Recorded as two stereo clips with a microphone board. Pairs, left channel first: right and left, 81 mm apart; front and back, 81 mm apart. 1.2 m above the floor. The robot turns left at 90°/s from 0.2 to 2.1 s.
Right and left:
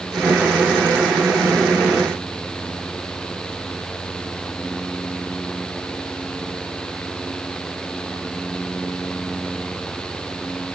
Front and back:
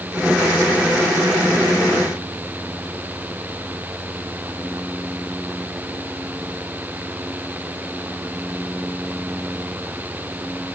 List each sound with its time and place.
Only background noise.